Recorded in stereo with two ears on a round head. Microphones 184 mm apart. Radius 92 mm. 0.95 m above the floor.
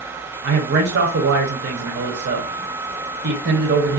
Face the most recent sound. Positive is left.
turn(degrees=-50)  # may be behind; listen again after turning